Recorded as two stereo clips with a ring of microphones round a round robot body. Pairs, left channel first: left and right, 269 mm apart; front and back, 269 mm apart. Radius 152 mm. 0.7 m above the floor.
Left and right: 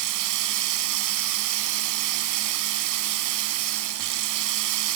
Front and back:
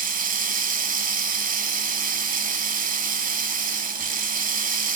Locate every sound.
0.0 s running water: 120° right, 1.3 m